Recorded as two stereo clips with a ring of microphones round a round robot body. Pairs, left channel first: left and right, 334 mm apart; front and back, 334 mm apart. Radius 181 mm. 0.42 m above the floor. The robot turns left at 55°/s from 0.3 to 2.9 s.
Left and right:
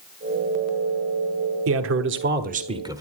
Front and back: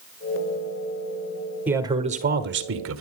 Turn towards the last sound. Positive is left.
turn(degrees=-165)